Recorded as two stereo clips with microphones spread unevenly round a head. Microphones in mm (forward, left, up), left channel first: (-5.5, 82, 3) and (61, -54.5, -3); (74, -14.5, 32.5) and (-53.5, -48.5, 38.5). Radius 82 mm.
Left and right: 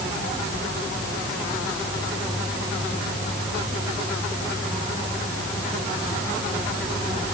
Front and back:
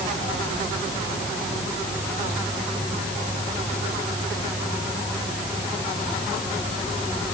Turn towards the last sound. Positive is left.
No sound to turn to.